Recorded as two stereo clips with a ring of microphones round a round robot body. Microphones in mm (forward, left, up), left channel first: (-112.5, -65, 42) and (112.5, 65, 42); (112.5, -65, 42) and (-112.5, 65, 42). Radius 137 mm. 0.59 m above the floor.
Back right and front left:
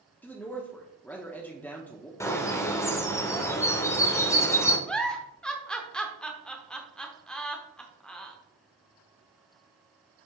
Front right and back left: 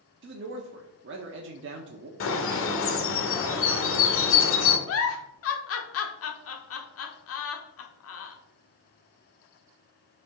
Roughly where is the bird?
Right.